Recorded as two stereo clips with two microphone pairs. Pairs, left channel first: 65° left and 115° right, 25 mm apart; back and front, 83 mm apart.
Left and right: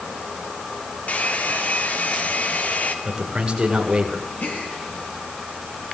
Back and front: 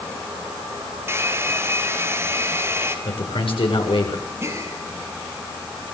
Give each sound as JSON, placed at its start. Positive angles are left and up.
{"t": 1.1, "sound": "a hair dryer", "azimuth_deg": 60, "distance_m": 3.5}
{"t": 3.0, "sound": "a man speaking", "azimuth_deg": -175, "distance_m": 7.5}
{"t": 4.4, "sound": "a gasp", "azimuth_deg": 60, "distance_m": 6.5}